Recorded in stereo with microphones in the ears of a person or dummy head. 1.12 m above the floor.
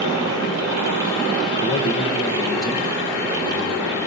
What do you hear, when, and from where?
1.6 s a man speaking: 30° left (ahead or behind), 1.0 m; by 4.0 s 15° left (ahead or behind), 2.5 m